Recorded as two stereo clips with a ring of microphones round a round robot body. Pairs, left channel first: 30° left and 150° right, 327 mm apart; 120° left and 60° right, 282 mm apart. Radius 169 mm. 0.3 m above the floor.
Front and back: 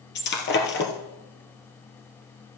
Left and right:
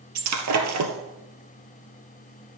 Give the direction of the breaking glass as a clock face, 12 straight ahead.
1 o'clock.